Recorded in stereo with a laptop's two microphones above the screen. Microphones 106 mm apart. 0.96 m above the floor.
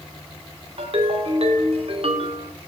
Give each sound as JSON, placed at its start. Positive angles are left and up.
{"t": 0.8, "sound": "a ringtone", "side_deg": -65, "distance_m": 1.8}